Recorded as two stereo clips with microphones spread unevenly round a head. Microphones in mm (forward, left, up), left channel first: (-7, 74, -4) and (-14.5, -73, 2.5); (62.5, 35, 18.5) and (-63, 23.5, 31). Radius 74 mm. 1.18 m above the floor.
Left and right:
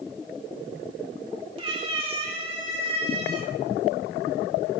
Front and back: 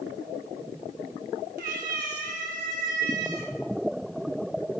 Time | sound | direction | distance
1.6 | a cat meowing | 145° right | 1.9 m